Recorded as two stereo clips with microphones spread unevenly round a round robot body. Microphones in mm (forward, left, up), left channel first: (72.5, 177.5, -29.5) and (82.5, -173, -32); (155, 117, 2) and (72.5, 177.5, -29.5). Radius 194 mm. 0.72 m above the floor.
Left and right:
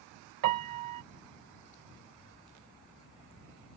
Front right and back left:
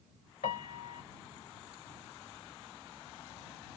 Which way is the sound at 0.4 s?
60° right.